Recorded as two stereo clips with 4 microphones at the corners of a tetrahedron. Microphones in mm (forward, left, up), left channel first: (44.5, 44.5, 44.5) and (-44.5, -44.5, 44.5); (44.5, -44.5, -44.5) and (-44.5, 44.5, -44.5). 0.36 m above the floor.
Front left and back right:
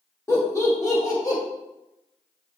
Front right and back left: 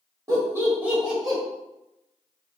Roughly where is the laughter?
Left.